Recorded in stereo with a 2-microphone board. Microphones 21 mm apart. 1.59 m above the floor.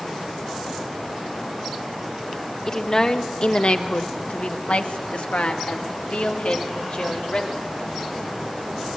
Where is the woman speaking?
30° left (ahead or behind), 1.7 m; by 7.7 s 60° left (ahead or behind), 3.5 m.